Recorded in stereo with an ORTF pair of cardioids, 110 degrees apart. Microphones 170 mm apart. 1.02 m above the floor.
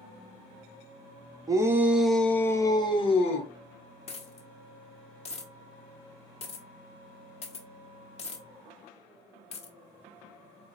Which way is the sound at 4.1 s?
40° left.